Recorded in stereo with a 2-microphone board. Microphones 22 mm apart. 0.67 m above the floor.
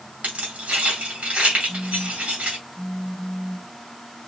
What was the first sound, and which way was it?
Keys jangling, 80° right.